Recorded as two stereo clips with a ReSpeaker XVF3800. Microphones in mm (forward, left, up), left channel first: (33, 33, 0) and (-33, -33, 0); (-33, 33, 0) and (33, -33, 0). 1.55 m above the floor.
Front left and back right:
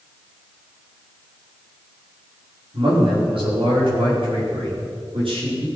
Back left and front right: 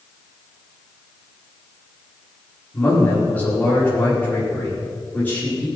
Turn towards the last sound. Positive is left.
turn(degrees=-150)